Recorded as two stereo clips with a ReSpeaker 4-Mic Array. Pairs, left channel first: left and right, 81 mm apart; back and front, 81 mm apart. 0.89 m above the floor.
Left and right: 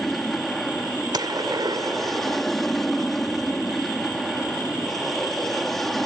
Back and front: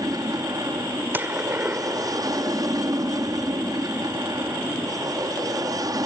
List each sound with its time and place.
0.0 s an aircraft: 5° left
1.1 s a gunshot: 65° right